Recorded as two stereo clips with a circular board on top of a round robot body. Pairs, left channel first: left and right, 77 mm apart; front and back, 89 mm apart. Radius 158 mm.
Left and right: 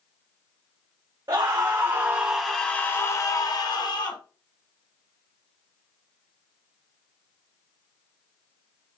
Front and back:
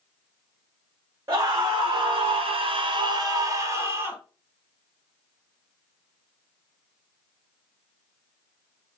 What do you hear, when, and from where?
1.3 s a scream: 130° right, 0.9 m; by 4.2 s 115° left, 1.1 m